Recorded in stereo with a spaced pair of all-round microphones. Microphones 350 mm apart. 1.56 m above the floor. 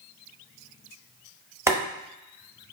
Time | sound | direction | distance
1.7 | boiling | 10° right (ahead or behind) | 0.9 m